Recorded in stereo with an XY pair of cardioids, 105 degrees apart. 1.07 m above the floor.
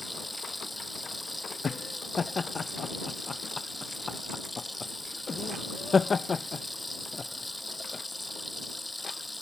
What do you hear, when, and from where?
0.0 s running water: 10° left
1.6 s laughter: 35° left